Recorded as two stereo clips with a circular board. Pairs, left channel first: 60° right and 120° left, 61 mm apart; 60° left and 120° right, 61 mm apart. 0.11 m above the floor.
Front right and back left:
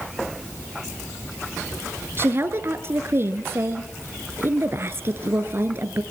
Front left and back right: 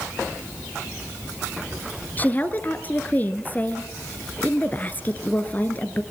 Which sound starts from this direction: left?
A woman speaking, at 2.2 s.